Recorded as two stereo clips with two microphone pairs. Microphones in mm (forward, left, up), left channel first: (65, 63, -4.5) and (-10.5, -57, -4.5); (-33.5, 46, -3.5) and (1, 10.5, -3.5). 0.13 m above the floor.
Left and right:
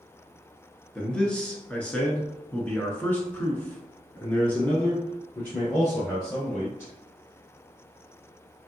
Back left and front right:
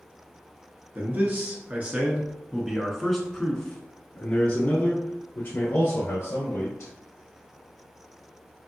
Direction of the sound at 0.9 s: 25° right.